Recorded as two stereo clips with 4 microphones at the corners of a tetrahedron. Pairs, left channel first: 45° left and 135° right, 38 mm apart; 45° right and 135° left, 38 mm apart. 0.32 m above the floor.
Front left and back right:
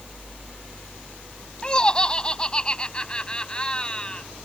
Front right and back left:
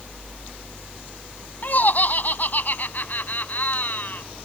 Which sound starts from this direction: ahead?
Laughter, at 1.6 s.